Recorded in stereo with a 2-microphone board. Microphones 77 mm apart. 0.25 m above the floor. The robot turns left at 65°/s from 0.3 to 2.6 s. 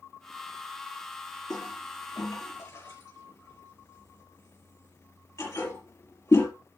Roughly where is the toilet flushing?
Left.